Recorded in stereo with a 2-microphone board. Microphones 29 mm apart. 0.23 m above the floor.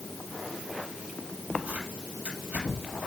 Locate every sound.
1.7 s tearing paper: 70° right (ahead or behind), 5 m